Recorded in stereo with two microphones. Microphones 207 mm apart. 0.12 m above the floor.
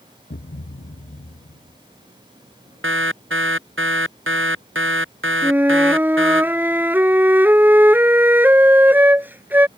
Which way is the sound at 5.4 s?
10° right (ahead or behind).